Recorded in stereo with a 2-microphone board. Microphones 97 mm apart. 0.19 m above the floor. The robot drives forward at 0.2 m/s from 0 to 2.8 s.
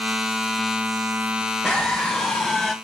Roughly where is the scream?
Centre.